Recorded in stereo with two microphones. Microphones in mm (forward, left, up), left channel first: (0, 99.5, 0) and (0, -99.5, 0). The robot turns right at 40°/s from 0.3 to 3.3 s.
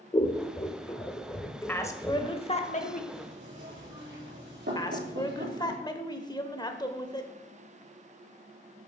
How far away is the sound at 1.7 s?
About 1.1 m.